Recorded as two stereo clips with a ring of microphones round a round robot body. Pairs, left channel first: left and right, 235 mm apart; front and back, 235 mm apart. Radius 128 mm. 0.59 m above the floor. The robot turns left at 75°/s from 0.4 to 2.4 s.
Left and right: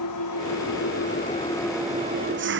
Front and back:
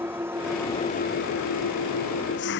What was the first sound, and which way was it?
An engine running, 100° left.